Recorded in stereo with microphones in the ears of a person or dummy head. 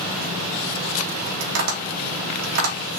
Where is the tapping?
85° right, 2.5 m.